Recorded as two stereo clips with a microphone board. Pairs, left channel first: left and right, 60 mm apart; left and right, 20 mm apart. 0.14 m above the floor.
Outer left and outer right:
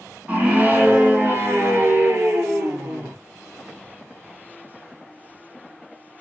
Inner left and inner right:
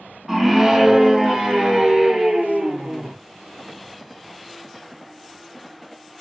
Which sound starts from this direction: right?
A scream, at 0.3 s.